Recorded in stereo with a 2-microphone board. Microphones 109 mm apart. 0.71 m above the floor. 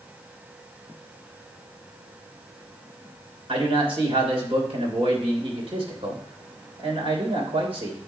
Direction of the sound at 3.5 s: 60° right (ahead or behind).